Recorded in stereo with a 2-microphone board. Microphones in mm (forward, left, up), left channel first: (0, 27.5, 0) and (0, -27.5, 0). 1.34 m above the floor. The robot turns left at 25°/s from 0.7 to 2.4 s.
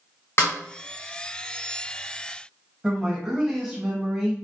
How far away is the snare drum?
About 1.2 m.